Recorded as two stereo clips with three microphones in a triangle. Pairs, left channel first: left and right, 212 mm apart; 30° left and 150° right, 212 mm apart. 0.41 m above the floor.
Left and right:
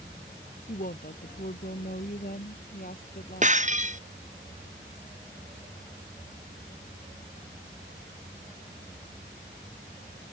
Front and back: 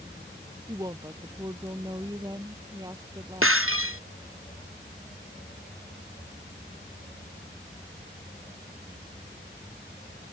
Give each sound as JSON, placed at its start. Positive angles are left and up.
{"t": 0.7, "sound": "a woman speaking", "azimuth_deg": 140}
{"t": 3.4, "sound": "breaking glass", "azimuth_deg": -145}